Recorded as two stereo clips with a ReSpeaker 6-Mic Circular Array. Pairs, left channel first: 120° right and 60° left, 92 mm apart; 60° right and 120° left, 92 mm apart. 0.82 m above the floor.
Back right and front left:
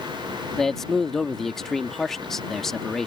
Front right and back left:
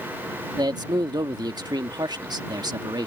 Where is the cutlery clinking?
I don't hear cutlery clinking.